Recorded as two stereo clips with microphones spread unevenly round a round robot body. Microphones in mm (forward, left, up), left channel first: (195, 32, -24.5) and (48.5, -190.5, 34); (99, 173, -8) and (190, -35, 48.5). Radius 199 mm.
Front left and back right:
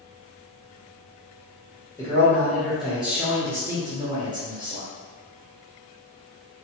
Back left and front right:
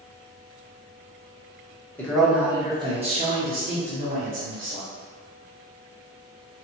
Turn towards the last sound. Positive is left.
turn(degrees=-45)